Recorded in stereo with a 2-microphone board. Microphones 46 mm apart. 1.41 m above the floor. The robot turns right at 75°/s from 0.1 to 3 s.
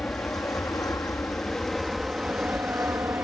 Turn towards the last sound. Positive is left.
turn(degrees=-65)  # may be behind; listen again after turning